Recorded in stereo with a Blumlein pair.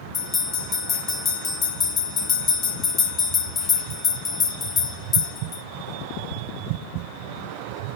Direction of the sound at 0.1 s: 20° left.